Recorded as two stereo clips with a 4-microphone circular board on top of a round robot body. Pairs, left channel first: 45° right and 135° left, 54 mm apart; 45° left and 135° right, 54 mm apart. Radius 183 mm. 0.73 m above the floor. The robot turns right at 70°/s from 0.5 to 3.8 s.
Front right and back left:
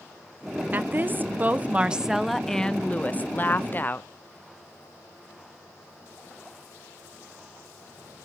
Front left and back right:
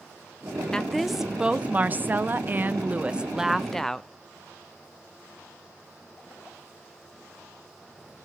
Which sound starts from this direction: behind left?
A woman speaking, at 0.7 s.